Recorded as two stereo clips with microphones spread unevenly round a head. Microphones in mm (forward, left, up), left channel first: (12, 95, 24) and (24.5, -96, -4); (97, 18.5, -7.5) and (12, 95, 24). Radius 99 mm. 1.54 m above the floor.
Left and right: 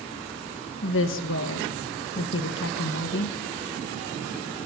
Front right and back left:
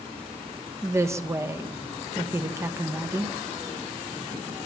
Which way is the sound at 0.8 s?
70° left.